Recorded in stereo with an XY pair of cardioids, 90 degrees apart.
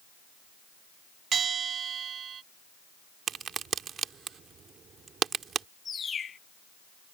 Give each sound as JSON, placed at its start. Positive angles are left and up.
{"t": 1.3, "sound": "a bell", "azimuth_deg": -60}
{"t": 3.3, "sound": "a crack", "azimuth_deg": -60}
{"t": 5.8, "sound": "a bird", "azimuth_deg": 50}